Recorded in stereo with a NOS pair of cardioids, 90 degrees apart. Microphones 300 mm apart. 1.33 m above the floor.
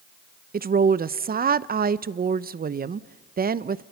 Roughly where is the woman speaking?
Ahead right.